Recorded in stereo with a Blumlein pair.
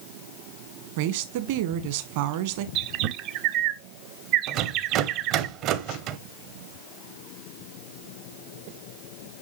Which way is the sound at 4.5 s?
40° right.